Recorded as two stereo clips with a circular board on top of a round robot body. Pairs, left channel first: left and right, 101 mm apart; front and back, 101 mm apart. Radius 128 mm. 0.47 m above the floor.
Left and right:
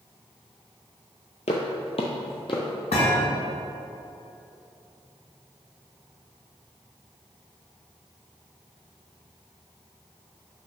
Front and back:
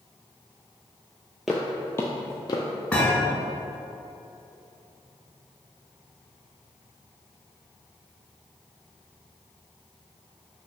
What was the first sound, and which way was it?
Footsteps, 95° left.